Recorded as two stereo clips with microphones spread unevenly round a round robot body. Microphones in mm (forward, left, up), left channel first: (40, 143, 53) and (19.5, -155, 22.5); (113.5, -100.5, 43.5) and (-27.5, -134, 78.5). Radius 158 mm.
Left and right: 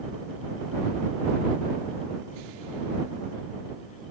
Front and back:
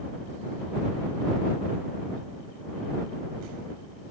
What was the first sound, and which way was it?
Only background noise.